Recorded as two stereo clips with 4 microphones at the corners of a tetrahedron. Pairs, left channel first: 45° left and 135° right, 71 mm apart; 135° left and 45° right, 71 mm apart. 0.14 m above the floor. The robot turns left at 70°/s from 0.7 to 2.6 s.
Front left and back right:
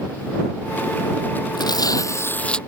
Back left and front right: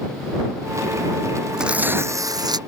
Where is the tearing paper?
35° left; by 2.6 s 35° right.